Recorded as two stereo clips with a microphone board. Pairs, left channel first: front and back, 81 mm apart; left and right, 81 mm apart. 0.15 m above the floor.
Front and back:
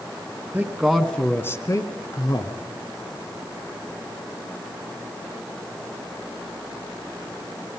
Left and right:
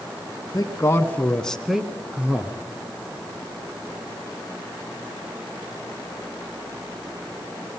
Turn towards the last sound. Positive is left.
turn(degrees=-20)